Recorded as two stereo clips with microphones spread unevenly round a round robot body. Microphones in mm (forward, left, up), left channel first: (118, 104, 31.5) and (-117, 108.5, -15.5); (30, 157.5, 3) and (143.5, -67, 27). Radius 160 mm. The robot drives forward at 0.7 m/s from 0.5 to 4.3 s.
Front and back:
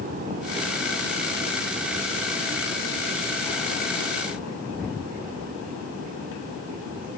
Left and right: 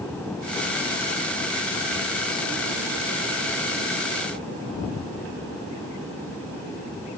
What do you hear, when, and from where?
Only background noise.